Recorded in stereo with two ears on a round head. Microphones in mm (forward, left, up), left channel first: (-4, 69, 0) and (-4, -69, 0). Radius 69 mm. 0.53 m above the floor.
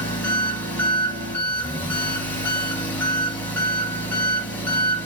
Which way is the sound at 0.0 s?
15° left (ahead or behind).